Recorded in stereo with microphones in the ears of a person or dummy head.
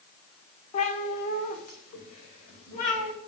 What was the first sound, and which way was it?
A cat meowing, 40° left (ahead or behind).